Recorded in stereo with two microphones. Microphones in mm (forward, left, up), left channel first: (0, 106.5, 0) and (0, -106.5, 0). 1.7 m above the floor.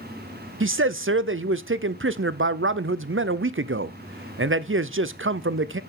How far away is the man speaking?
About 0.6 m.